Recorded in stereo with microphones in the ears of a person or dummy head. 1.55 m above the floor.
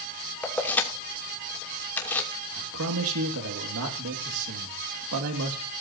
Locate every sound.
0.4 s keys jangling: 10° left (ahead or behind), 3 m
2.6 s a man speaking: 75° right (ahead or behind), 2.5 m